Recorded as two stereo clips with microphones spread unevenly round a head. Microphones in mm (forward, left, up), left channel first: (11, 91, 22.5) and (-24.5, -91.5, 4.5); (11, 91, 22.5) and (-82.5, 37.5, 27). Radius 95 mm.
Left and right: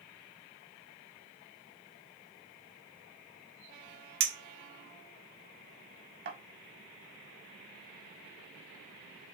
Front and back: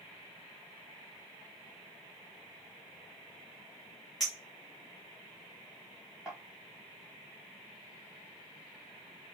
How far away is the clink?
About 1.3 m.